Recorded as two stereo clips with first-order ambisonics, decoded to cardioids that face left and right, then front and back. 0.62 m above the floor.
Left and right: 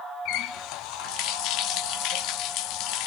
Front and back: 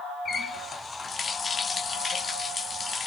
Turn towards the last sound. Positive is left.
turn(degrees=70)